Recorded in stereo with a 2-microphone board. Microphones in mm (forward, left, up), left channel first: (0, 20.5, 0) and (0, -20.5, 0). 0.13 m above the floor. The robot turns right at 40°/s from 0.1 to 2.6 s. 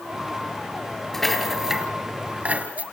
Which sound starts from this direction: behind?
A rattle, at 1.1 s.